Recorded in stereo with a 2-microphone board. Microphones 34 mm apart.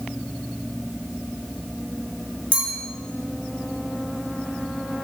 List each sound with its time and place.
2.5 s a clink: 45° left (ahead or behind), 1.6 m